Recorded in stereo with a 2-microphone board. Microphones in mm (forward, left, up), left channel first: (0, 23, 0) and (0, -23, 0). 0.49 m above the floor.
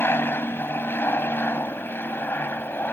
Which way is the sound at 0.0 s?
50° left (ahead or behind).